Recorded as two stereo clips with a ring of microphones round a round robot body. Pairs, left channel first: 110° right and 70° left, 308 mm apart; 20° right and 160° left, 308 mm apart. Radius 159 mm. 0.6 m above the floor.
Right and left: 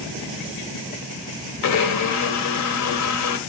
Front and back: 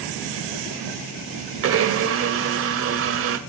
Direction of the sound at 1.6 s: 150° right.